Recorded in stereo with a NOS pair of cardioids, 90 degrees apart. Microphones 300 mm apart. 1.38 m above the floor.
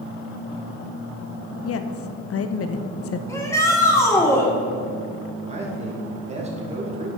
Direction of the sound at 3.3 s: 10° left.